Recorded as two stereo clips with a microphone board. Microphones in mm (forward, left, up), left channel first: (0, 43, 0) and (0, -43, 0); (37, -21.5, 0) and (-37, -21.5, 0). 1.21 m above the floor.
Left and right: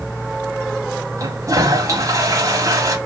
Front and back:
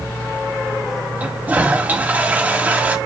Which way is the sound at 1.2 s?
120° right.